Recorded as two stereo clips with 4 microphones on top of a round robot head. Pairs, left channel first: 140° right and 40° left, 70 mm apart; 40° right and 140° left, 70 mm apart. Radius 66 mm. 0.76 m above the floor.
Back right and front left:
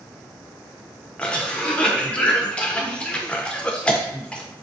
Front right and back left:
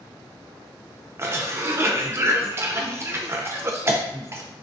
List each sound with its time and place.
1.2 s a cough: 160° left, 0.5 m